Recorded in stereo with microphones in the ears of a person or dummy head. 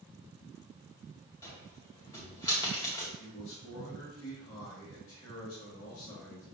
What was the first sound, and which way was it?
A cupboard door, 20° left (ahead or behind).